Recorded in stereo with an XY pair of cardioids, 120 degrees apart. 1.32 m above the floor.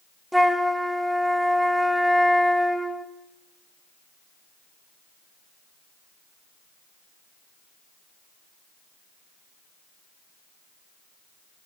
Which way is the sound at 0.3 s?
Straight ahead.